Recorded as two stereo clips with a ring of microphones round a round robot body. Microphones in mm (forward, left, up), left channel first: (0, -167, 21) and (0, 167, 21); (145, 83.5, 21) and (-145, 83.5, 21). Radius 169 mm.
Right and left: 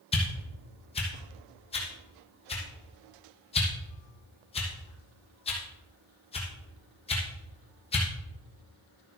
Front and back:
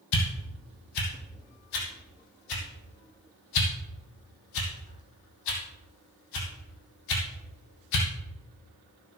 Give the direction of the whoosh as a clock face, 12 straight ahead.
1 o'clock.